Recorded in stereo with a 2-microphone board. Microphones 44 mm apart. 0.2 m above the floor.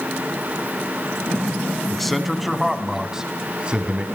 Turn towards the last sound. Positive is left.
turn(degrees=-30)  # may be behind; listen again after turning